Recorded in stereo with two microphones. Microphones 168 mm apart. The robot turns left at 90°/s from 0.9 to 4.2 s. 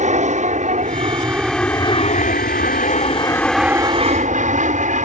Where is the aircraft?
45° right (ahead or behind); by 5.0 s 50° right (ahead or behind).